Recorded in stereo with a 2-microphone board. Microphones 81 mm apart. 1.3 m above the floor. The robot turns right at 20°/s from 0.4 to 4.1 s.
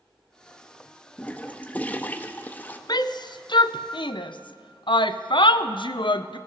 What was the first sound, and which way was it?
A toilet flushing, 15° left (ahead or behind).